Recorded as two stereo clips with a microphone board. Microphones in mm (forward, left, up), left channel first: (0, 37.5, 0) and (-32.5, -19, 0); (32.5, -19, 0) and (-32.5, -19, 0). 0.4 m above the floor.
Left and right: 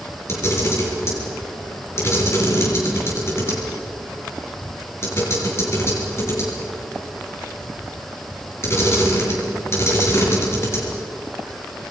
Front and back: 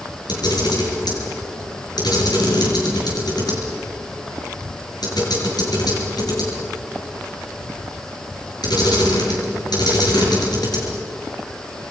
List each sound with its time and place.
0.3 s a camera shutter: 10° left, 6.5 m